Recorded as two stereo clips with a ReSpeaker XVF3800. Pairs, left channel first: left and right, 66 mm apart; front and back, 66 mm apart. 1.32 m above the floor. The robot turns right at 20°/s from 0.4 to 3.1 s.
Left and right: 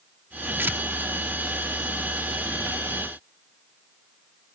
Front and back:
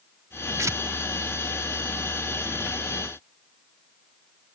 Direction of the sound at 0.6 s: 145° right.